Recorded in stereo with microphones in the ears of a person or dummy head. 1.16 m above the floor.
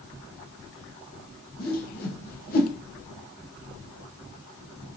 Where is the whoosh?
40° left (ahead or behind), 0.8 m.